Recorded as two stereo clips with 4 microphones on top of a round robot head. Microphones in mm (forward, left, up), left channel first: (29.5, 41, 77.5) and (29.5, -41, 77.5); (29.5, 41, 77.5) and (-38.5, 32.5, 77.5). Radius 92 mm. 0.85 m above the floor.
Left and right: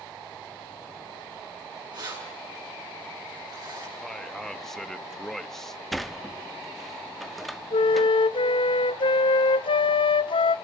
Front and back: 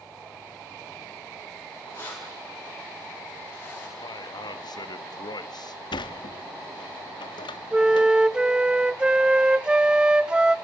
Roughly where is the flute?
Left.